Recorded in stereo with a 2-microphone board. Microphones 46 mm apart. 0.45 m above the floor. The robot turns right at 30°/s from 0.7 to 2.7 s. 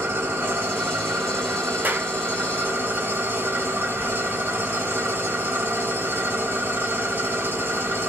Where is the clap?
40° right (ahead or behind), 1.0 m; by 2.1 s 45° right (ahead or behind), 1.0 m.